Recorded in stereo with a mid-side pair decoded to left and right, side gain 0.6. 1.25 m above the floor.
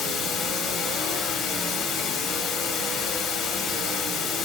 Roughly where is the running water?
Ahead left.